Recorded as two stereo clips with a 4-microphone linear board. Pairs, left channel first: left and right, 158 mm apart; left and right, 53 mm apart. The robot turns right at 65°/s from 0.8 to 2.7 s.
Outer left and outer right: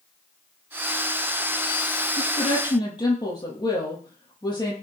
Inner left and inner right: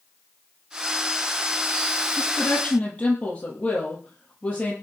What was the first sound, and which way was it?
A woman speaking, 120° left.